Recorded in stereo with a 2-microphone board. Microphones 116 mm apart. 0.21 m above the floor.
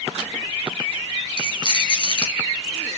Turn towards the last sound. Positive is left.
turn(degrees=45)  # may be behind; listen again after turning